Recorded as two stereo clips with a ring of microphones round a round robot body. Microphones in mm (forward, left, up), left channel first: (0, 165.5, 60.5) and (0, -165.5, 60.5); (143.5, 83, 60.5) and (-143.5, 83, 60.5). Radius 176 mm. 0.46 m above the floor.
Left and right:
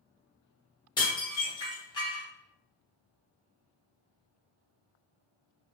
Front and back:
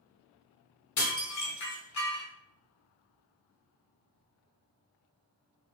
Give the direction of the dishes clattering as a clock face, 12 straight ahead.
12 o'clock.